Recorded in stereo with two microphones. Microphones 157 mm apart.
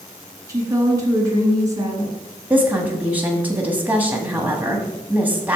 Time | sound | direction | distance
0.5 | a woman speaking | 20° right (ahead or behind) | 2 m
2.5 | a woman speaking | 10° right (ahead or behind) | 1.1 m